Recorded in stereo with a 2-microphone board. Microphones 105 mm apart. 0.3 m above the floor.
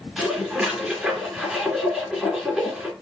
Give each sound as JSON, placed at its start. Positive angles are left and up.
{"t": 0.2, "sound": "dishes clattering", "side_deg": -5, "distance_m": 3.0}